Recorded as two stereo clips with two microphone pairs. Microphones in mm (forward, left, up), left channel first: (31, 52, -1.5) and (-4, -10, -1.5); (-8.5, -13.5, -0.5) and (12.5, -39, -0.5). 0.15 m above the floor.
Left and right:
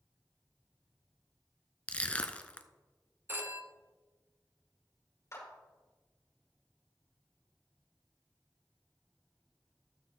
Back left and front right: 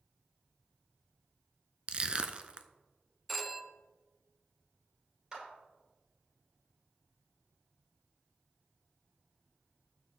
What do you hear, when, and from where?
1.9 s crushing: 5° right, 0.6 m
3.3 s a phone ringing: 140° right, 0.7 m
5.3 s a clap: 15° left, 4 m